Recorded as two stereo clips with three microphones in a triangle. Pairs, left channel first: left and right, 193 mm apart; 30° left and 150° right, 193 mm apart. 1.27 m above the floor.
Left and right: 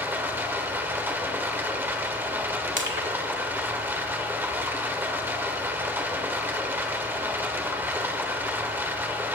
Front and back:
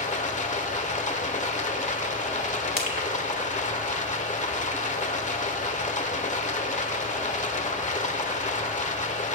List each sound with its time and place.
0.0 s running water: 15° right, 1.3 m
2.8 s crushing: 115° right, 2.5 m